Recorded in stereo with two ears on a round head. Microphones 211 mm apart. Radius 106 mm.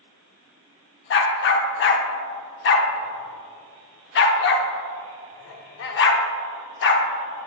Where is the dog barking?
50° left (ahead or behind), 0.7 m.